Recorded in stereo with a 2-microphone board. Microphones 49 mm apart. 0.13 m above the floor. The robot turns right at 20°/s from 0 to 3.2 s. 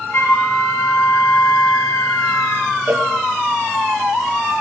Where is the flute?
55° left, 1.2 m; by 2.7 s 110° left, 1.2 m.